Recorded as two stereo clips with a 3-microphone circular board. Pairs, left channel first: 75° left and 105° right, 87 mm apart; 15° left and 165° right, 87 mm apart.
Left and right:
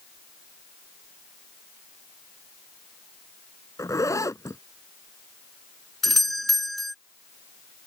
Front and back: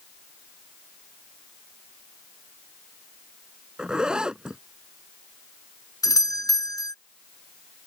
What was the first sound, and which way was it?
A zipper, 115° left.